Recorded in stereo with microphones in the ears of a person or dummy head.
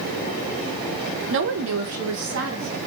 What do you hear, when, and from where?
1.3 s a woman speaking: 65° right (ahead or behind), 0.8 m; by 2.8 s 55° right (ahead or behind), 1.6 m